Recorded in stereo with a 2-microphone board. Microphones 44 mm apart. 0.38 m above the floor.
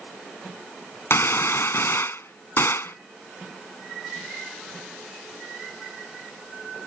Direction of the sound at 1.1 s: 65° left (ahead or behind).